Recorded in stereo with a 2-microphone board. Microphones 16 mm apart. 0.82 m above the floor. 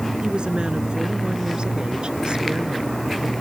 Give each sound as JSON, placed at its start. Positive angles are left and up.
{"t": 0.2, "sound": "a woman speaking", "side_deg": -80}